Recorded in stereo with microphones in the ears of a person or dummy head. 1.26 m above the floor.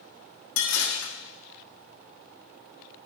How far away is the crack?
No crack in this recording.